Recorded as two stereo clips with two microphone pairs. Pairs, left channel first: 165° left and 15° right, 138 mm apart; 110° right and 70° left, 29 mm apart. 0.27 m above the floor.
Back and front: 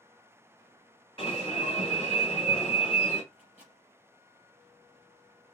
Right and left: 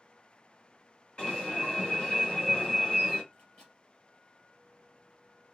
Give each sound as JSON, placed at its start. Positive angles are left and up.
{"t": 1.2, "sound": "an alarm", "azimuth_deg": -155, "distance_m": 3.0}
{"t": 3.3, "sound": "a microwave", "azimuth_deg": -155, "distance_m": 4.0}